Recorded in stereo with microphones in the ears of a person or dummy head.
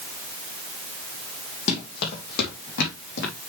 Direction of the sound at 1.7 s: 50° left (ahead or behind).